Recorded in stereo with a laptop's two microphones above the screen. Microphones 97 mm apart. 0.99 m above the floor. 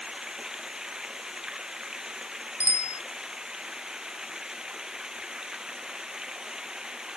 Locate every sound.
0.0 s running water: 5° right (ahead or behind)
2.6 s a bicycle bell: 30° left (ahead or behind)